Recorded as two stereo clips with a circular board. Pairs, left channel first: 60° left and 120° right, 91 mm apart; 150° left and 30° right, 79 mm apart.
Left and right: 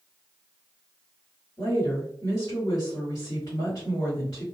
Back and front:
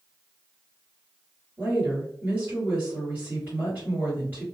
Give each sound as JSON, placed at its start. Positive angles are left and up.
{"t": 1.6, "sound": "a woman speaking", "azimuth_deg": 30, "distance_m": 1.9}